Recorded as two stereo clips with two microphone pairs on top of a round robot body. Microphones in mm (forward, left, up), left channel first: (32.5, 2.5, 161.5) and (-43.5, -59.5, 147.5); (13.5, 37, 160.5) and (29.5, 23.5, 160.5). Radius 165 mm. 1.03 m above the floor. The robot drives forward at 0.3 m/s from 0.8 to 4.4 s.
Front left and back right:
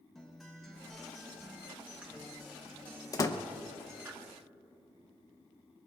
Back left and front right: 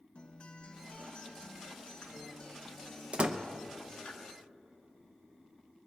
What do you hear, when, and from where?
0.1 s a guitar: 130° left, 1.0 m; by 4.1 s 155° left, 1.8 m
3.1 s a door slam: 15° right, 0.8 m; by 3.4 s 20° right, 0.7 m